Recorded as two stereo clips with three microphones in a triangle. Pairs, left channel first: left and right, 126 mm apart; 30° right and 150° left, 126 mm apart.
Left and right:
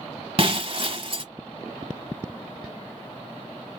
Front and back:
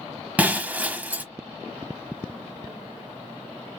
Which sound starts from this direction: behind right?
Breaking glass, at 0.4 s.